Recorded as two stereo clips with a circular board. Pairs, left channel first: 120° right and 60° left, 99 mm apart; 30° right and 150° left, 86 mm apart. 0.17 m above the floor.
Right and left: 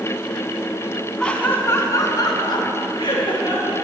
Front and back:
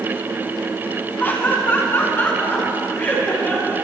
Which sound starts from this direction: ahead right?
Laughter, at 1.2 s.